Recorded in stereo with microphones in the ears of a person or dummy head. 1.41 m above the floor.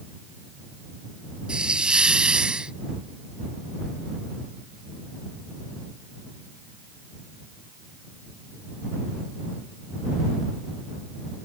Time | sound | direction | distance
1.5 | a hiss | centre (ahead or behind) | ?